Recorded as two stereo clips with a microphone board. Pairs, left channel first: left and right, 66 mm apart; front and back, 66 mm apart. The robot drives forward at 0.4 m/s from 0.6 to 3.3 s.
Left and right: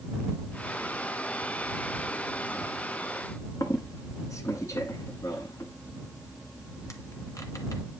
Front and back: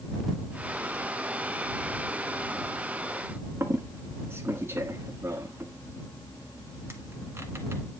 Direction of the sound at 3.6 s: 130° left.